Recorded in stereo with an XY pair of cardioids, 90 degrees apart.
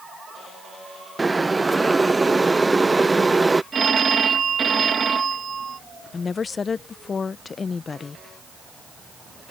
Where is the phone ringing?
45° right.